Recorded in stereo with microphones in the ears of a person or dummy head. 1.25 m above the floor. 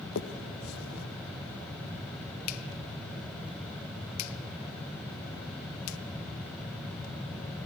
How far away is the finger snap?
About 1.1 m.